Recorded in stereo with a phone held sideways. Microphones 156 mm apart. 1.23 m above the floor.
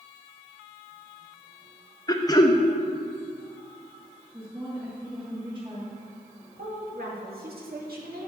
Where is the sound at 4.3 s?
30° right (ahead or behind), 2.5 m.